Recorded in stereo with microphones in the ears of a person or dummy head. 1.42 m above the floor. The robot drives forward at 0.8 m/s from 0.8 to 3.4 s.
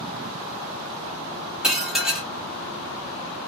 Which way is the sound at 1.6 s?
5° right (ahead or behind).